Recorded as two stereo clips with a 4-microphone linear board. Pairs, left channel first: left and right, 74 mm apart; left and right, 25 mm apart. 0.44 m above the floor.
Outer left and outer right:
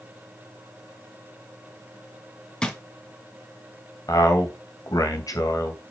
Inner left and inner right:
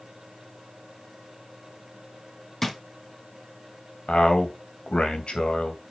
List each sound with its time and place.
2.6 s a drawer: 10° left (ahead or behind), 1.9 m
4.1 s a man speaking: 55° left (ahead or behind), 3 m